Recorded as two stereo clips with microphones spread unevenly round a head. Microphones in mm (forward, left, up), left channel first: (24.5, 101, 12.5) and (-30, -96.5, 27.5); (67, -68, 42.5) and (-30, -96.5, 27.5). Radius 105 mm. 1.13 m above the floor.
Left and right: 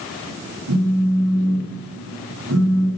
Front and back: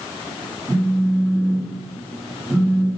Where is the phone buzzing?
80° right, 8 m.